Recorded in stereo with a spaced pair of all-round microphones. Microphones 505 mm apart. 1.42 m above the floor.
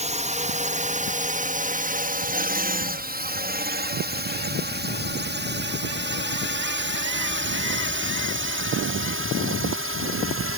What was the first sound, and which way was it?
A drone, 15° right (ahead or behind).